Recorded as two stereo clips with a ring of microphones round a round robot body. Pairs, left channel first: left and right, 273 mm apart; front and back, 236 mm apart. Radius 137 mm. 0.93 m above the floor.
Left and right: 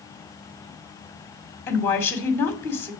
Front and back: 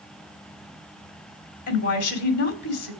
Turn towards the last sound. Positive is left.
turn(degrees=10)